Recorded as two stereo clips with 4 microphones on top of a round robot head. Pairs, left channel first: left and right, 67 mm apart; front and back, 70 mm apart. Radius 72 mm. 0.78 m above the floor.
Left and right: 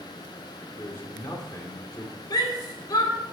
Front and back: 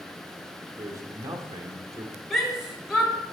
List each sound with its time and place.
0.8 s a man speaking: 145° left, 2 m
2.3 s a shout: 90° left, 3.5 m